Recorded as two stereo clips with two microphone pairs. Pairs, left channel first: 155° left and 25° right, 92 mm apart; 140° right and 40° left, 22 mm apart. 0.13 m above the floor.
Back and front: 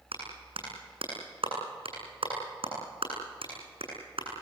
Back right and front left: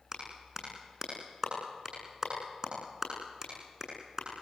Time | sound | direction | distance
0.1 | a clap | 25° right | 8.5 m